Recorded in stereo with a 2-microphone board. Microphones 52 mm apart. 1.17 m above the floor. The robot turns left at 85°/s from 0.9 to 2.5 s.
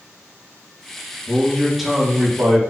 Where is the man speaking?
45° left, 1.4 m; by 2.6 s 60° right, 1.4 m.